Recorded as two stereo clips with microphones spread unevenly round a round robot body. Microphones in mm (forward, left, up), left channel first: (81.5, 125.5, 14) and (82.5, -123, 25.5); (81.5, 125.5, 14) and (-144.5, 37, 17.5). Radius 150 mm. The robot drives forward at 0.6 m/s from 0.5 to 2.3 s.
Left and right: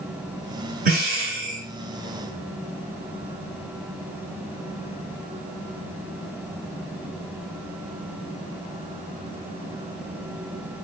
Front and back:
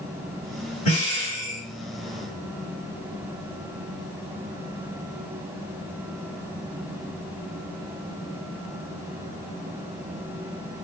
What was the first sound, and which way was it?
Breathing, 40° right.